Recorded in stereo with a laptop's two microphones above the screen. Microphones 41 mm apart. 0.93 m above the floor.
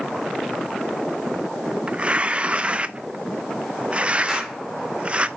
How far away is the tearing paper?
About 0.6 m.